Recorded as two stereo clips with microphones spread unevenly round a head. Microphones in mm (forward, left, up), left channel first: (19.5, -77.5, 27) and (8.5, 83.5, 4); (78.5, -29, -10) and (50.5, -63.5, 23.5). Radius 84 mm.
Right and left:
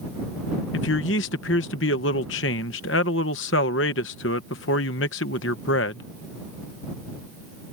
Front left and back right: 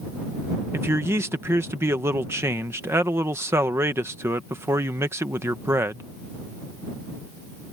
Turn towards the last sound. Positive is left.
turn(degrees=-105)